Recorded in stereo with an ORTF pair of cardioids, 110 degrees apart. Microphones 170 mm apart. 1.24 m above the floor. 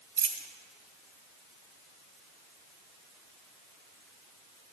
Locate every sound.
0.2 s a dropped coin: 55° right, 2 m